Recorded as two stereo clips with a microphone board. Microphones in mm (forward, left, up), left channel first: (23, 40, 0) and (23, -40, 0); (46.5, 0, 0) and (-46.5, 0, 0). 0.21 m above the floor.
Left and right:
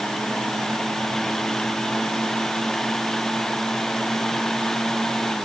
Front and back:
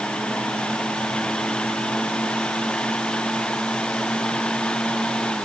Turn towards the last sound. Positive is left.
No sound to turn to.